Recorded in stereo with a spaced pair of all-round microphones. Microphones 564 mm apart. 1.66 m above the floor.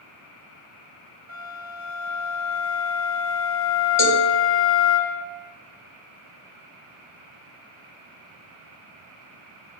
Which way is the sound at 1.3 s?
30° right (ahead or behind).